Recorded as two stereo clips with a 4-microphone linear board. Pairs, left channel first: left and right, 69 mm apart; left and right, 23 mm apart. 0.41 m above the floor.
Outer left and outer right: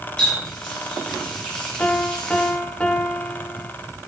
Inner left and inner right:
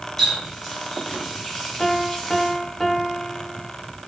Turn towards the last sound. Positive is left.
turn(degrees=15)  # may be behind; listen again after turning